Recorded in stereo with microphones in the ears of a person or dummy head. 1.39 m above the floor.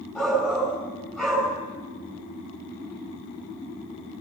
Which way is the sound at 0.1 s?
10° left (ahead or behind).